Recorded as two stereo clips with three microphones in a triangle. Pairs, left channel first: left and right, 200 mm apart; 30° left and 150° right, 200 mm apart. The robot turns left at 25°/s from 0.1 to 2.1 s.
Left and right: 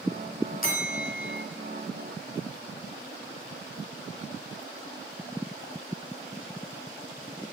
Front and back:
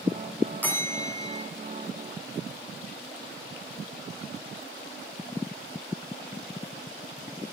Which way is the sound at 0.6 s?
110° left.